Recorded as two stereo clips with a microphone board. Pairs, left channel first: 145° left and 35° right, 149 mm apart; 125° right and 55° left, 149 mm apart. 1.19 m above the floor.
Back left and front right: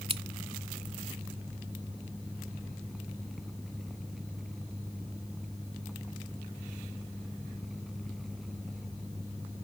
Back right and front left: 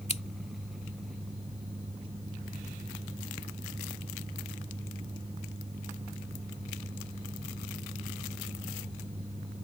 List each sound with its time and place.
0.1 s scissors: 85° right